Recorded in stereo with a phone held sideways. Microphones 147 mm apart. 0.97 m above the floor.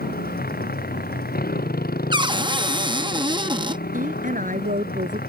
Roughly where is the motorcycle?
Left.